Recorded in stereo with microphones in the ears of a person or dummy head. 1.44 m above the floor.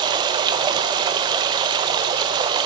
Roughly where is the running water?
Centre.